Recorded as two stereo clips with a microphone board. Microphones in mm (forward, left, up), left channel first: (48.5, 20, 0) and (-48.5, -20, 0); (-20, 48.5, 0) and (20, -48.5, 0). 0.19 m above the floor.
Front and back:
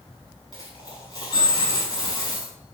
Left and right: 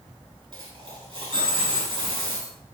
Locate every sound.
0.5 s a dropped coin: 20° right, 5.5 m